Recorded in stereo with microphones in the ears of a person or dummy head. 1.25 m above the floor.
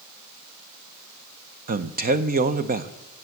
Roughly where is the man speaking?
Right.